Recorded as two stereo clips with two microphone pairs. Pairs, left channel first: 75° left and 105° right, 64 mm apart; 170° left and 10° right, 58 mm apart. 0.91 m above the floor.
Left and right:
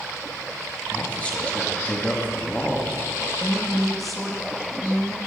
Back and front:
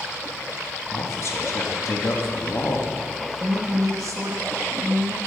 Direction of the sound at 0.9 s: 145° left.